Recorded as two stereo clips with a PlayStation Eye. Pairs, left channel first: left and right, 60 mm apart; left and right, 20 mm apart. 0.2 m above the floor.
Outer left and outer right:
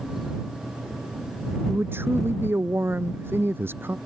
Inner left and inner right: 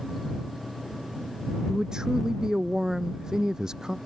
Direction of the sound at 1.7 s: 35° right (ahead or behind).